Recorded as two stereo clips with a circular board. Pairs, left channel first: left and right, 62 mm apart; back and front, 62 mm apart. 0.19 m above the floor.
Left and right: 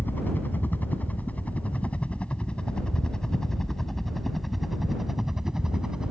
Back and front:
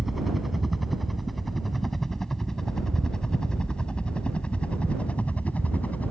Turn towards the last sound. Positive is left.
turn(degrees=-155)